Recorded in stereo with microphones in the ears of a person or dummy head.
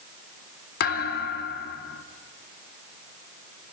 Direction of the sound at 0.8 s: 60° left (ahead or behind).